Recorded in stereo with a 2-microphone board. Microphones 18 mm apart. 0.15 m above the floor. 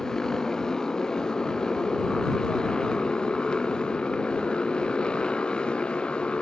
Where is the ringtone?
I don't hear a ringtone.